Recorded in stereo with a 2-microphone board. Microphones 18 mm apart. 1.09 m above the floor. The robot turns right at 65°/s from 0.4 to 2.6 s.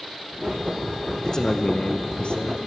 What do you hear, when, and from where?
1.2 s a man speaking: 30° left, 0.8 m; by 2.6 s 115° left, 0.8 m